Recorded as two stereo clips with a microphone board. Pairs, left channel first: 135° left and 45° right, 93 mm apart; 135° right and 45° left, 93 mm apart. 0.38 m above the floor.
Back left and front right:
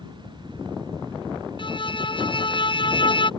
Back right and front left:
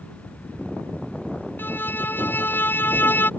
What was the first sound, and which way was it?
A violin, 155° left.